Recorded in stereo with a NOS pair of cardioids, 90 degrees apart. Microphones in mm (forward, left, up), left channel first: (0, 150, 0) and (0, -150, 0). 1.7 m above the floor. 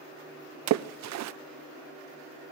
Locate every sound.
0.7 s a splash: 65° right, 0.6 m